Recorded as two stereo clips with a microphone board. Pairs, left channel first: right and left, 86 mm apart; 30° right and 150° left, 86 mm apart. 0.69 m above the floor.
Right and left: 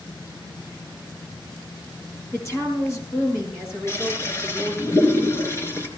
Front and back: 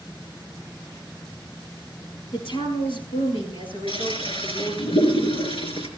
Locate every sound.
2.3 s a woman speaking: 30° right, 7.5 m
3.9 s a toilet flushing: 30° right, 3.5 m